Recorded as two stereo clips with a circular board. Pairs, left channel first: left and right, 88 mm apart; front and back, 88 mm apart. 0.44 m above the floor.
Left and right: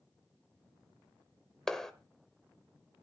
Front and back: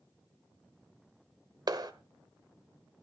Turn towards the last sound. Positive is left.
turn(degrees=175)